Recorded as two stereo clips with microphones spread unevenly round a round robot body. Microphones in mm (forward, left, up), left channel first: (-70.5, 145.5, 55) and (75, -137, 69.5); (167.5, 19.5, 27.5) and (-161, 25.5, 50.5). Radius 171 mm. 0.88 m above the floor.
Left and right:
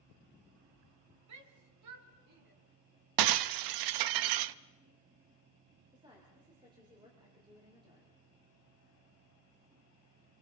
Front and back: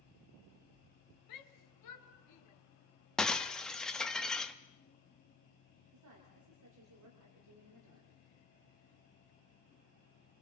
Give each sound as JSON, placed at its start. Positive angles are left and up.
{"t": 1.3, "sound": "a shout", "azimuth_deg": -25, "distance_m": 2.5}
{"t": 3.2, "sound": "breaking glass", "azimuth_deg": -90, "distance_m": 0.6}
{"t": 5.9, "sound": "a woman speaking", "azimuth_deg": -140, "distance_m": 3.5}